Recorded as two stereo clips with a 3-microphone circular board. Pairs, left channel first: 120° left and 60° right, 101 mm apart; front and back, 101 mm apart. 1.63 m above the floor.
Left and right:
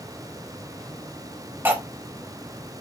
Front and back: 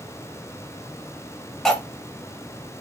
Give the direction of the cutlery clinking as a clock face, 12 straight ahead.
2 o'clock.